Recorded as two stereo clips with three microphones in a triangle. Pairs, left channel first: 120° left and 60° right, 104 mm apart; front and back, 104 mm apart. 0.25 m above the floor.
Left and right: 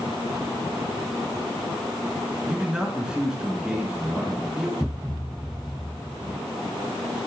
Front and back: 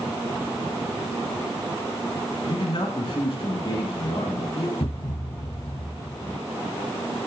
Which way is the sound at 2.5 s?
20° left.